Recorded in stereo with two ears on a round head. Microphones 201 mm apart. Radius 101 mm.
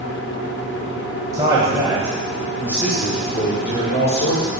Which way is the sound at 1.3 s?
15° right (ahead or behind).